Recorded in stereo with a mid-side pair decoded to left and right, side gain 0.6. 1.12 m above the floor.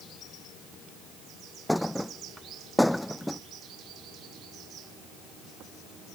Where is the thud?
5° left.